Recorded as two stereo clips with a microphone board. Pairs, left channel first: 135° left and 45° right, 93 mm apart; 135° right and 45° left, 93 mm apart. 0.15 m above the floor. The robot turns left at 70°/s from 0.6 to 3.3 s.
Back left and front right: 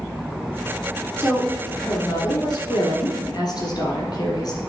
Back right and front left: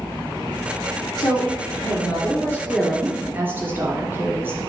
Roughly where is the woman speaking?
Right.